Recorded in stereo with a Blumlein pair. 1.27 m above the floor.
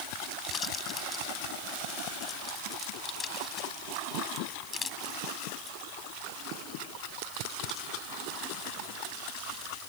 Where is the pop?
20° left.